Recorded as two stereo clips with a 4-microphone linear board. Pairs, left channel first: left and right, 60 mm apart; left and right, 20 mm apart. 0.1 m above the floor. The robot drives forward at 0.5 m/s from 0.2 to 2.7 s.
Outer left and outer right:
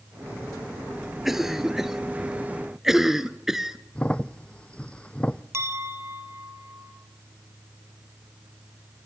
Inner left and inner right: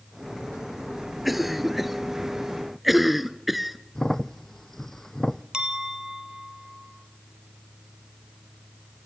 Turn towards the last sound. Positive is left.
turn(degrees=-50)  # may be behind; listen again after turning